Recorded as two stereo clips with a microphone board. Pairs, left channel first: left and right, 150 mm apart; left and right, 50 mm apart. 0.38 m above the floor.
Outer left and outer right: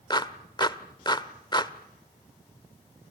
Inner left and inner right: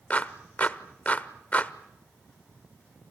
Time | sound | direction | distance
0.1 | a clap | 30° left (ahead or behind) | 1.0 m